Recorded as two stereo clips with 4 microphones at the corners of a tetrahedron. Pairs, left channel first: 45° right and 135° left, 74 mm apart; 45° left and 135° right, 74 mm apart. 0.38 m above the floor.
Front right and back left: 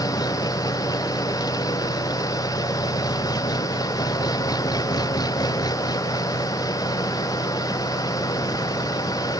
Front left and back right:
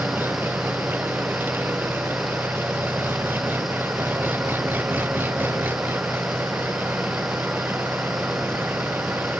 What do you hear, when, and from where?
0.0 s an engine running: 70° right